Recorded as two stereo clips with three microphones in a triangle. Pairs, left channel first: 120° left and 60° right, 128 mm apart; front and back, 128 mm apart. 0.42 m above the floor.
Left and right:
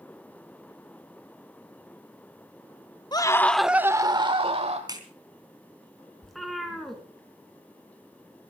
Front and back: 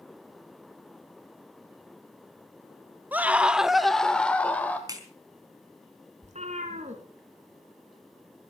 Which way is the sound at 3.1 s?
115° left.